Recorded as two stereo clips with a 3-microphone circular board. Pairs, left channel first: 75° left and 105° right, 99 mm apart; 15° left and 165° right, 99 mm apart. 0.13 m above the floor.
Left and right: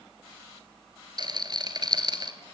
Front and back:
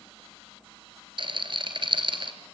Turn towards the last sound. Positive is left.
turn(degrees=-140)